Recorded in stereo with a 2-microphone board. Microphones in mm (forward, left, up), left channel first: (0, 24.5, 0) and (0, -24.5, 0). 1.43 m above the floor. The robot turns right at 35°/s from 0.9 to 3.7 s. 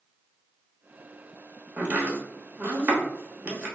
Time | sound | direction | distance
1.8 | chopping | 30° right (ahead or behind) | 1.0 m